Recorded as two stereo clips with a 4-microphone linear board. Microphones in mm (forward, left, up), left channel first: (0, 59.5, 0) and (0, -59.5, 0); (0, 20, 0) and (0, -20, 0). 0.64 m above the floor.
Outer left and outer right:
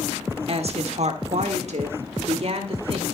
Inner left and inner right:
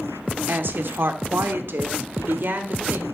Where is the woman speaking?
55° right (ahead or behind), 1.3 m.